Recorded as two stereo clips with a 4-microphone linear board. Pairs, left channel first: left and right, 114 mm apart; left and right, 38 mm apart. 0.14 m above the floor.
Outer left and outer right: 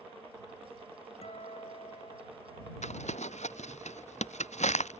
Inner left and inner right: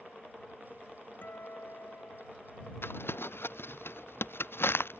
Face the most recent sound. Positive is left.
turn(degrees=85)